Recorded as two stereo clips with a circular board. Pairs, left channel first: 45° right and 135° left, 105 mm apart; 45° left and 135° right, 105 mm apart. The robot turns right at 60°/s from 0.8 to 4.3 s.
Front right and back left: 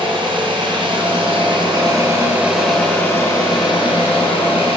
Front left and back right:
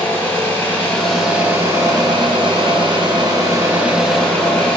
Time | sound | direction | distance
0.0 | an engine running | 110° left | 2.5 m